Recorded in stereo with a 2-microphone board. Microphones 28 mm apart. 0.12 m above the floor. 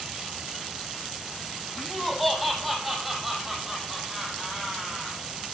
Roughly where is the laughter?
Centre.